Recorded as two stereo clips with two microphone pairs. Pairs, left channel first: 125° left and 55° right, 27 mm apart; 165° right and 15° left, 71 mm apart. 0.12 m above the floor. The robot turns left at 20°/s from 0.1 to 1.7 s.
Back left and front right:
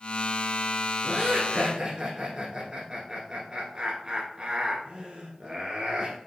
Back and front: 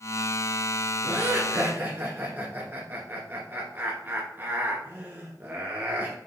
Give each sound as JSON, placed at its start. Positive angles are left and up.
{"t": 1.0, "sound": "laughter", "azimuth_deg": -10, "distance_m": 1.5}